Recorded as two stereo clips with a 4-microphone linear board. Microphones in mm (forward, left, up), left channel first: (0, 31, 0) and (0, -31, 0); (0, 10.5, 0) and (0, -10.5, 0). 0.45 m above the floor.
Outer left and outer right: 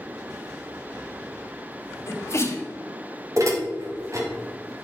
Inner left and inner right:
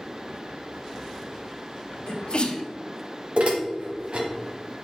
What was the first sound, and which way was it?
A sneeze, 45° left (ahead or behind).